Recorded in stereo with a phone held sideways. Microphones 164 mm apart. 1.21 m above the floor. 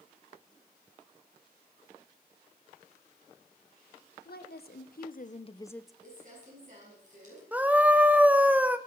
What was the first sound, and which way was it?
A woman speaking, 75° left (ahead or behind).